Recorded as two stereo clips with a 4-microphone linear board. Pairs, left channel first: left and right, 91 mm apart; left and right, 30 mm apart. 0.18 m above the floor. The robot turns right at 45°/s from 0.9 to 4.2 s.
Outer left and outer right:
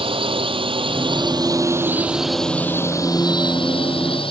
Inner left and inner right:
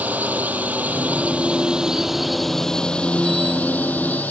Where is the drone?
75° right (ahead or behind); by 4.3 s 75° left (ahead or behind).